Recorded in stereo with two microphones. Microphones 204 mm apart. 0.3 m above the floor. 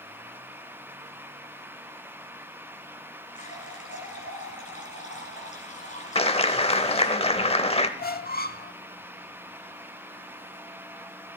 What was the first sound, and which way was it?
A running tap, 35° left (ahead or behind).